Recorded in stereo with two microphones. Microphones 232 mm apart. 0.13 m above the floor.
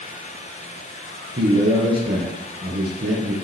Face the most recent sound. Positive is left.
turn(degrees=-45)  # may be behind; listen again after turning